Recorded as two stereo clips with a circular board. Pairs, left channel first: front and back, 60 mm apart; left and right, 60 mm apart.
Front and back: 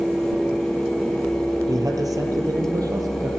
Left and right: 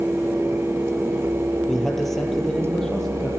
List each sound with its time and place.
1.7 s a man speaking: 175° left, 6 m; by 3.3 s 170° left, 8 m